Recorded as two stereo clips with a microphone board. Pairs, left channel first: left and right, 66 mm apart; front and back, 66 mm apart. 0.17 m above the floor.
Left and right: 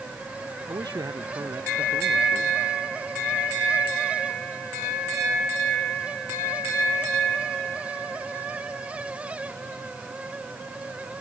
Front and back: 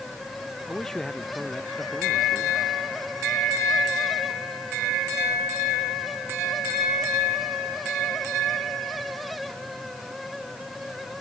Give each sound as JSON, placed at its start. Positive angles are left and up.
{"t": 0.7, "sound": "a man speaking", "azimuth_deg": -80}